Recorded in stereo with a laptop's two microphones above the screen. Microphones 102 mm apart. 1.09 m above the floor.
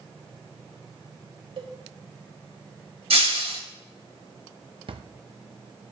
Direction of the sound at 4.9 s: 60° right (ahead or behind).